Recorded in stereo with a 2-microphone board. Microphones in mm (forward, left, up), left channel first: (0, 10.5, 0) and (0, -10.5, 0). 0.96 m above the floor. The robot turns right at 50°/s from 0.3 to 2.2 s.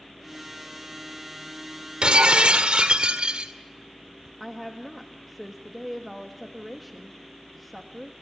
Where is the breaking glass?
55° right (ahead or behind), 1.9 m; by 3.5 s 65° right (ahead or behind), 1.9 m.